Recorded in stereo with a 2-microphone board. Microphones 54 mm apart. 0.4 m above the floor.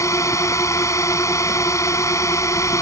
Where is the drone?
70° left (ahead or behind).